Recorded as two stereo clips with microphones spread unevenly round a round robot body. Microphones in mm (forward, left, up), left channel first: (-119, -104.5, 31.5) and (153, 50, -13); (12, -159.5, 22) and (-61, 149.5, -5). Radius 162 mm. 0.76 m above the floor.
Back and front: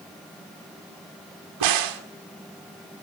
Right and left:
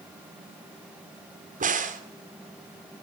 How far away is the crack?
About 2 m.